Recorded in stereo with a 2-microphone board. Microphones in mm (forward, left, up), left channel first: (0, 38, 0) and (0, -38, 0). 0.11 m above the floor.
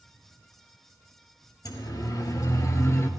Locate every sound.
1.6 s a siren: 60° left (ahead or behind), 3.5 m; by 3.1 s 40° left (ahead or behind), 2 m